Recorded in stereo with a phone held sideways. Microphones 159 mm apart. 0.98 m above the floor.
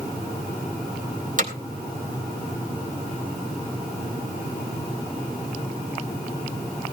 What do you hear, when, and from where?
1.4 s hammering: 55° right (ahead or behind), 3.5 m